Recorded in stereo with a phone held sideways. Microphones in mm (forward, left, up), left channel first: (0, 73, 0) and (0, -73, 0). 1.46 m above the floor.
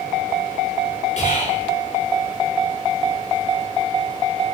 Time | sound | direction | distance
1.2 | whispering | 50° left (ahead or behind) | 5 m